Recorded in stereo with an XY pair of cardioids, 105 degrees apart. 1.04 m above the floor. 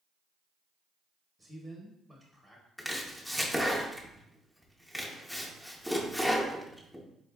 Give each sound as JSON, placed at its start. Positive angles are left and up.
{"t": 1.4, "sound": "a man speaking", "azimuth_deg": -15, "distance_m": 0.8}
{"t": 2.8, "sound": "chopping", "azimuth_deg": -5, "distance_m": 0.7}